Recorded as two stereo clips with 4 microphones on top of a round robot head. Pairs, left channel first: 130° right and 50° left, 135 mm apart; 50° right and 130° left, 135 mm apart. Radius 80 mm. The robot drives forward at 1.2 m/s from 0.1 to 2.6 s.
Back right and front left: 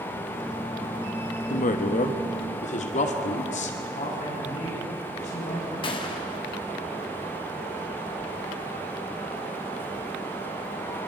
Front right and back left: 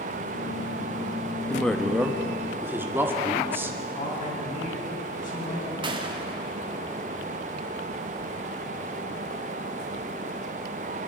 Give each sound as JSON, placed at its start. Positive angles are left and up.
{"t": 1.5, "sound": "a woman speaking", "azimuth_deg": -130, "distance_m": 1.2}
{"t": 3.9, "sound": "a man speaking", "azimuth_deg": -85, "distance_m": 8.0}
{"t": 5.8, "sound": "a gunshot", "azimuth_deg": 180, "distance_m": 2.0}